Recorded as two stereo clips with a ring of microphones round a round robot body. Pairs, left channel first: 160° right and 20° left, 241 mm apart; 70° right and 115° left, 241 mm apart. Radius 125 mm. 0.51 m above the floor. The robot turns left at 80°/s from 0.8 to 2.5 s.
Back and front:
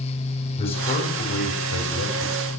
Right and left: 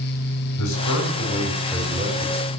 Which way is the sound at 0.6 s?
90° right.